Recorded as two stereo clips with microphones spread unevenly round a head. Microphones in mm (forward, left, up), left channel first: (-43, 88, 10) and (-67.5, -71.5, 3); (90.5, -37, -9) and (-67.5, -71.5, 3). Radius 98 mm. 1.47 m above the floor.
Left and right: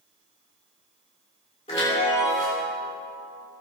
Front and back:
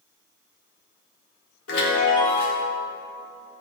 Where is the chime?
20° left, 3 m.